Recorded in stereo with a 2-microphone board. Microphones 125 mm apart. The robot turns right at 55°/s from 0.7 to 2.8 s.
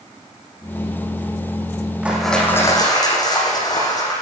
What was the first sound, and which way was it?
Crushing, 10° right.